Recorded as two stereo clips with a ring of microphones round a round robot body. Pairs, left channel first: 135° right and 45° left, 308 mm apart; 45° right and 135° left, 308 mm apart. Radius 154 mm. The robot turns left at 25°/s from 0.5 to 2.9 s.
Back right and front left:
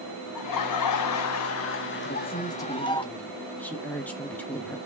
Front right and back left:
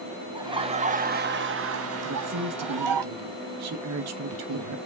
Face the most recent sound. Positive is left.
turn(degrees=140)